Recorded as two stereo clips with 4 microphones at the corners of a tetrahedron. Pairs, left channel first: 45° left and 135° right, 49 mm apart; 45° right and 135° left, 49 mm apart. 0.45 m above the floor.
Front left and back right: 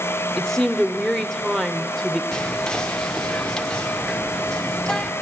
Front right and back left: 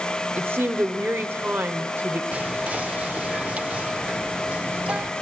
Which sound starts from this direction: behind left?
A woman speaking, at 0.4 s.